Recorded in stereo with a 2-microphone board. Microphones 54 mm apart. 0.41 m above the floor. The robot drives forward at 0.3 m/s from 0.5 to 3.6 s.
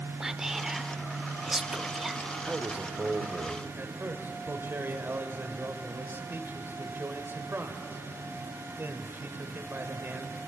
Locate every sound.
0.2 s whispering: 10° right (ahead or behind), 0.9 m
2.4 s a man speaking: 30° right (ahead or behind), 1.5 m
3.8 s a man speaking: 45° right (ahead or behind), 1.9 m